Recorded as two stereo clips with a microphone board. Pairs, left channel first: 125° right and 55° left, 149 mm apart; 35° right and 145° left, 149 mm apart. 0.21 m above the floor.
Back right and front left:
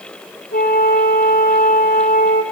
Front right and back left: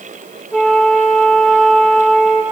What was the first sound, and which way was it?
A flute, 125° right.